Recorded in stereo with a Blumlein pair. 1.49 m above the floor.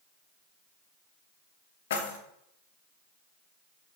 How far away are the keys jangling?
About 1.4 m.